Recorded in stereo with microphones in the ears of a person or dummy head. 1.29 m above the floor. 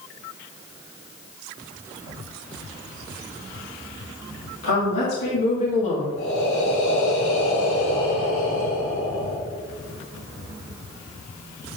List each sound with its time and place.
4.6 s a woman speaking: 70° left (ahead or behind), 2 m; by 6.1 s 35° left (ahead or behind), 1.7 m
6.2 s breathing: 70° left (ahead or behind), 3.5 m